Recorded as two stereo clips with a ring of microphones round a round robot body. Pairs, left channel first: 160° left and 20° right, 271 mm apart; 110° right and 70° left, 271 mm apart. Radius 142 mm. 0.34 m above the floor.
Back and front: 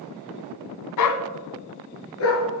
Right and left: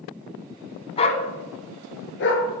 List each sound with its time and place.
1.0 s a dog barking: 175° left, 1.1 m; by 2.5 s 160° right, 2.5 m